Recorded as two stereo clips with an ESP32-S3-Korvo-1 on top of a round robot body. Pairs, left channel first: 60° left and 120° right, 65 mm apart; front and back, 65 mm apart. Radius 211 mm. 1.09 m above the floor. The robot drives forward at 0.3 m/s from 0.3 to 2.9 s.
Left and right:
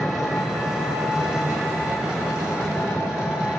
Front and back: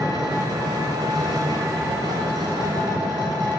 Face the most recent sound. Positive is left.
turn(degrees=160)